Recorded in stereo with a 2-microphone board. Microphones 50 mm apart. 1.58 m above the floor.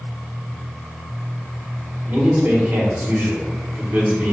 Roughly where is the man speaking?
Right.